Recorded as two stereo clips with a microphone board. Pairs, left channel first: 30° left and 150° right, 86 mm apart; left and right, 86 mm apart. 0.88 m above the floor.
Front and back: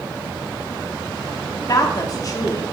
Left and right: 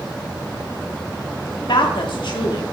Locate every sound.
1.7 s a woman speaking: 75° left, 1.6 m